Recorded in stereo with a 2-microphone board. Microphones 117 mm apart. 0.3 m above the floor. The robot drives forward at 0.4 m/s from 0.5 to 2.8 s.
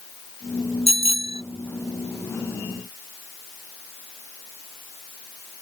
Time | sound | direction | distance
0.9 | a bicycle bell | 65° left (ahead or behind) | ?